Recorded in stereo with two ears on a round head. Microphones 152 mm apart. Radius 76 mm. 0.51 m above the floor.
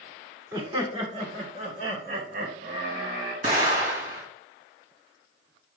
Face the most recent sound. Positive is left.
turn(degrees=-55)  # may be behind; listen again after turning